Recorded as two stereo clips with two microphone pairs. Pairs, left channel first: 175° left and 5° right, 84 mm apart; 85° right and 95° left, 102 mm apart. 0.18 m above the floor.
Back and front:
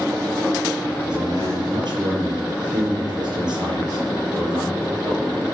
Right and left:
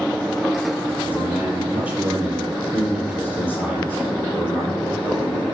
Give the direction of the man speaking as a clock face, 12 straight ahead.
11 o'clock.